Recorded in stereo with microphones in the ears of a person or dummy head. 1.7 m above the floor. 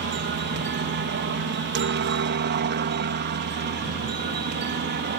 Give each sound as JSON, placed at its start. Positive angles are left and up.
{"t": 0.0, "sound": "a helicopter", "side_deg": -50}